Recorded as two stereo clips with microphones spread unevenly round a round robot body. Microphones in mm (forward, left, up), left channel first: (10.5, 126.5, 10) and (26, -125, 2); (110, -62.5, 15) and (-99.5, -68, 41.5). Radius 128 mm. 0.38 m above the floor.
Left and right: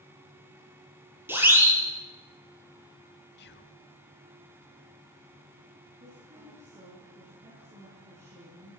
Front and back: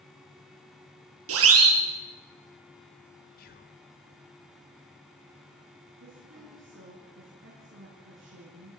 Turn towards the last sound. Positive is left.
turn(degrees=-150)